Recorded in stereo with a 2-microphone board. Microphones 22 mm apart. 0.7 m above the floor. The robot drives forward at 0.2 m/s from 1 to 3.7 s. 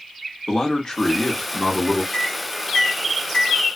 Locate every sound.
0.5 s a man speaking: 35° left (ahead or behind), 1.2 m
2.1 s a microwave: 45° left (ahead or behind), 1.2 m; by 3.6 s 35° left (ahead or behind), 1.3 m